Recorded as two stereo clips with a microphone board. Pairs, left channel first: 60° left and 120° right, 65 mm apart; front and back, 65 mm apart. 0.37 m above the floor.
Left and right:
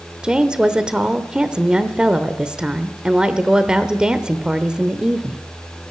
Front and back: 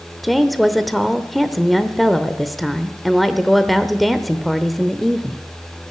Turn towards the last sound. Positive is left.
turn(degrees=-85)